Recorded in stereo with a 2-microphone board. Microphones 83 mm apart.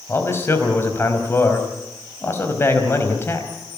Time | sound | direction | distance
0.1 | a man speaking | 30° left (ahead or behind) | 4 m